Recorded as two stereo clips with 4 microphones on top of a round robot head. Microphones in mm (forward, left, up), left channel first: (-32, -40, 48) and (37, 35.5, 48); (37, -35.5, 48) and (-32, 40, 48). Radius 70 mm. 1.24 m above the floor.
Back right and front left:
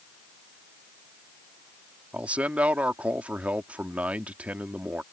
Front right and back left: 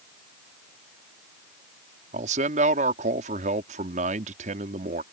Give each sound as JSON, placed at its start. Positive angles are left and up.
{"t": 2.1, "sound": "a man speaking", "azimuth_deg": 125}